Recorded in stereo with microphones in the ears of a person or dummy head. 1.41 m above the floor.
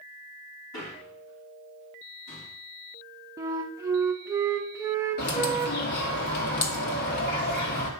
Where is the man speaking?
60° left (ahead or behind), 4.5 m; by 2.5 s 75° left (ahead or behind), 5 m.